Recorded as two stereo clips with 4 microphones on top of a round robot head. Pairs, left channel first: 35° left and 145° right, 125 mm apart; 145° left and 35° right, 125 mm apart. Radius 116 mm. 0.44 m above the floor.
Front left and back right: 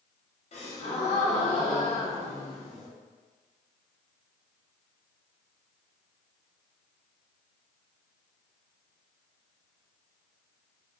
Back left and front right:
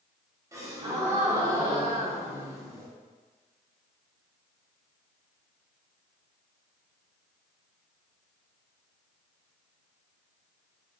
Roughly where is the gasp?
Ahead left.